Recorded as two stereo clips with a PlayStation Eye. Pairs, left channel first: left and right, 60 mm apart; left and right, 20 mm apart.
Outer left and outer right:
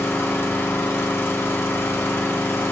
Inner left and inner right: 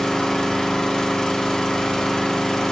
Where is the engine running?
40° left (ahead or behind), 1.1 m.